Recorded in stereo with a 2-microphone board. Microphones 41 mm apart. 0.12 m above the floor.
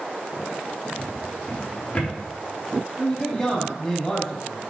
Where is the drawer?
35° left (ahead or behind), 4 m.